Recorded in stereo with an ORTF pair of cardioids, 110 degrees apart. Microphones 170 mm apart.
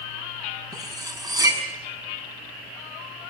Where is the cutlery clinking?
20° right, 6 m.